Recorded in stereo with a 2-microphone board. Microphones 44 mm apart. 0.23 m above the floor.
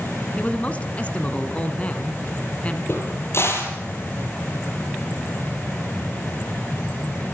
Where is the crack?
70° left (ahead or behind), 4.5 m.